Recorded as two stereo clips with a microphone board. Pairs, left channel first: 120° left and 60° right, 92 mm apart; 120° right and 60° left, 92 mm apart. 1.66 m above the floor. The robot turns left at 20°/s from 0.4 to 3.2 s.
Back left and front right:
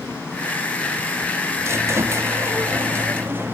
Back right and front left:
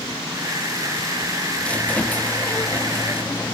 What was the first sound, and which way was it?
A squeak, 55° right.